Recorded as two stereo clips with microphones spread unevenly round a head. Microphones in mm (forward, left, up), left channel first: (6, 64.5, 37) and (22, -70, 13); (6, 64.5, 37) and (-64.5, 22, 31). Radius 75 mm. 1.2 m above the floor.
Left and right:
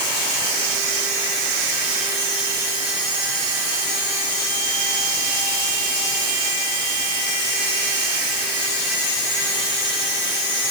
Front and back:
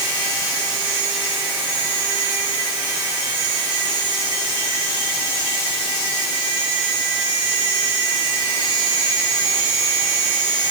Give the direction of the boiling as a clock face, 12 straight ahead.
I don't hear boiling.